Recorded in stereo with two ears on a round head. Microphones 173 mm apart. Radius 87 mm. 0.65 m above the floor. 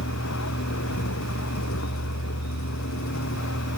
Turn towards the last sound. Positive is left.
turn(degrees=85)